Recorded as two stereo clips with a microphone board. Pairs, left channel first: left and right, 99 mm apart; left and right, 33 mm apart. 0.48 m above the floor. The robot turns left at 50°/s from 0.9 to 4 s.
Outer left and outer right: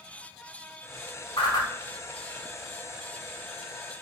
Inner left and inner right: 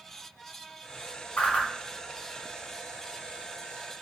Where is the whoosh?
60° left (ahead or behind), 0.8 m; by 1.7 s 45° left (ahead or behind), 0.8 m.